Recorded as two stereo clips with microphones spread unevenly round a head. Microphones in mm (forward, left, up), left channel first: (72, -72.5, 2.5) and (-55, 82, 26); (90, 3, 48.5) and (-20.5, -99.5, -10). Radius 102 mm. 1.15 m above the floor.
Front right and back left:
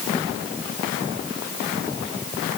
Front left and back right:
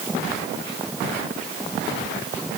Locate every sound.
Only background noise.